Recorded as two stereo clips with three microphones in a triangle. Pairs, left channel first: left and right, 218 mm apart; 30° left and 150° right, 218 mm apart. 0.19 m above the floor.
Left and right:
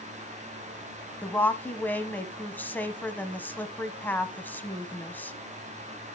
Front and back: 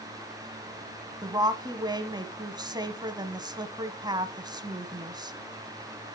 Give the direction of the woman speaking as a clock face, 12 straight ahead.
7 o'clock.